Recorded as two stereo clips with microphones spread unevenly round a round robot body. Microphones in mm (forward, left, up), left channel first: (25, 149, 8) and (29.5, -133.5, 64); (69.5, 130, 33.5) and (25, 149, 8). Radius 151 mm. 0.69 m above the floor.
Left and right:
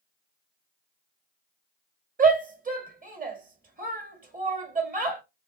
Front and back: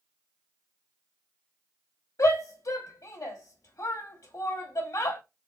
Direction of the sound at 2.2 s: 25° right.